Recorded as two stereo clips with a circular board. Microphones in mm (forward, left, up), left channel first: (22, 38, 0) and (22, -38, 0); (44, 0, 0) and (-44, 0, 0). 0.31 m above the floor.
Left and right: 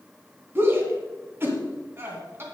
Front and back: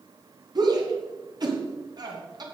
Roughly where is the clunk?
No clunk in this recording.